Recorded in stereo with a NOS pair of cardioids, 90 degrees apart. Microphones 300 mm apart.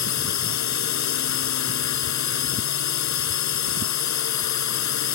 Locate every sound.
0.0 s a drone: 65° left